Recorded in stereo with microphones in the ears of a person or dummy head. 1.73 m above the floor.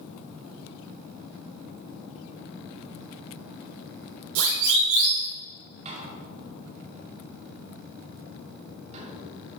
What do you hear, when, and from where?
4.3 s a siren: 75° right (ahead or behind), 4.5 m
5.8 s a door slam: 35° right (ahead or behind), 3 m